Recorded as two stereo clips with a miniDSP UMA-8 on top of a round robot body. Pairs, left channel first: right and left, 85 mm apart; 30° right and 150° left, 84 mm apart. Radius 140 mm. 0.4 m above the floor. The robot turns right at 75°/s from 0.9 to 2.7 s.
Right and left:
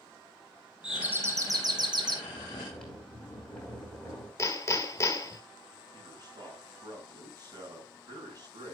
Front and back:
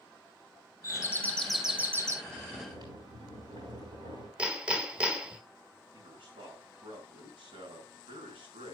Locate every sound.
0.8 s a doorbell: 10° left, 2.5 m; by 2.1 s 105° left, 2.5 m
2.2 s snoring: 150° left, 6.5 m; by 4.3 s 175° right, 6.5 m
4.4 s hammering: 135° right, 2.0 m
5.9 s a man speaking: 130° left, 6 m